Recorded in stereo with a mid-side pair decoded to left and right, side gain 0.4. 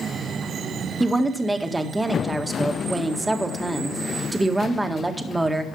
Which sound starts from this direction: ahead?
A woman speaking, at 1.0 s.